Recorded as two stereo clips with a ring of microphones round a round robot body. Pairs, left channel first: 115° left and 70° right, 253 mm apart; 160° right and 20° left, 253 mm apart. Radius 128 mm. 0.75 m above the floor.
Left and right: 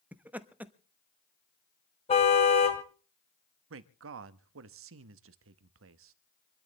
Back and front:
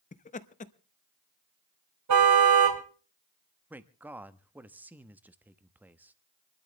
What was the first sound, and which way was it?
Laughter, 145° right.